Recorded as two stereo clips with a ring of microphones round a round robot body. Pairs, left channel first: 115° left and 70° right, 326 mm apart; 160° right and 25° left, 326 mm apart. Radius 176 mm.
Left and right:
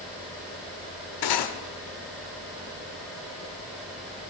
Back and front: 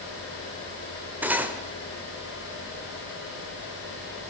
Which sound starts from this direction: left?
Cutlery clinking, at 1.2 s.